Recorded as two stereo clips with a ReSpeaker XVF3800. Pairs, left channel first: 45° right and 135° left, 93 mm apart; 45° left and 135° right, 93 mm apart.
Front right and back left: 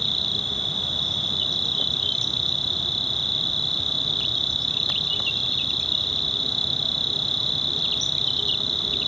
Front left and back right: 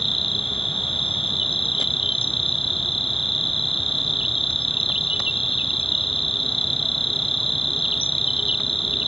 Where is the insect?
45° left.